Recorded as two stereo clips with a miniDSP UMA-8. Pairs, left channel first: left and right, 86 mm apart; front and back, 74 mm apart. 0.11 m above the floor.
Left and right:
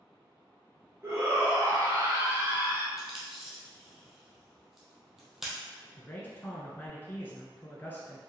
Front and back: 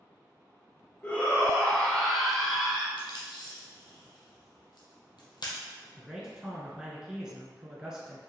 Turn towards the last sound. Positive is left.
turn(degrees=115)